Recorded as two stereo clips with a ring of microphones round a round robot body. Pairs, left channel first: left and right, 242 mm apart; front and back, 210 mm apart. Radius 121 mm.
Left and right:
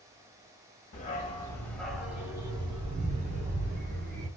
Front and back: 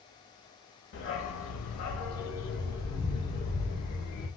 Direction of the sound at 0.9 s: 35° left.